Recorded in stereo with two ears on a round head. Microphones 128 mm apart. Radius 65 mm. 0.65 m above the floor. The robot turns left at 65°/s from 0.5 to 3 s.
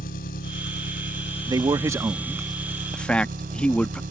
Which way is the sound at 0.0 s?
100° left.